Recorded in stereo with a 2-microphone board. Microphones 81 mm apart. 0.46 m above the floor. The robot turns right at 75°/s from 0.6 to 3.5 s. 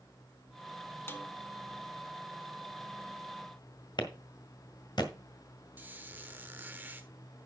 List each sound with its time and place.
1.1 s a snare drum: 30° left (ahead or behind), 1.1 m; by 1.3 s 20° left (ahead or behind), 1.1 m
4.0 s a clap: 70° left (ahead or behind), 1.6 m
5.8 s a squeak: 20° right (ahead or behind), 1.1 m